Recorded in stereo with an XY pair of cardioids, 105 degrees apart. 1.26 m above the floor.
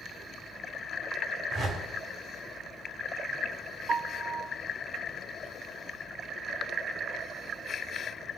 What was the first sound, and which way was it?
A whoosh, 50° right.